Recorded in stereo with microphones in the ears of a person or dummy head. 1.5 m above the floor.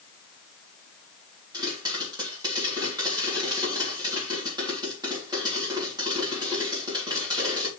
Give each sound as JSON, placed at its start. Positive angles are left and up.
{"t": 1.5, "sound": "a pop", "side_deg": -25, "distance_m": 3.5}